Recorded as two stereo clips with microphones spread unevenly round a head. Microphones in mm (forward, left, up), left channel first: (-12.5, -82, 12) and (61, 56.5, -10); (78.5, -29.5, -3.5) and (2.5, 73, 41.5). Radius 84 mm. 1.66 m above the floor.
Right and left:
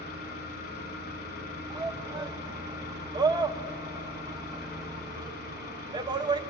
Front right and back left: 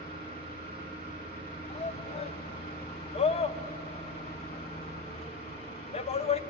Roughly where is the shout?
Ahead.